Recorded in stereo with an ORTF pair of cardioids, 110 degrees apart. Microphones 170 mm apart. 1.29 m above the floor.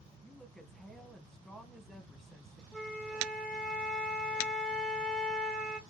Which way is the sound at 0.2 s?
5° left.